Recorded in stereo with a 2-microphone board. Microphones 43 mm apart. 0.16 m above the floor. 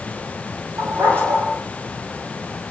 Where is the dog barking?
70° right (ahead or behind), 7.5 m.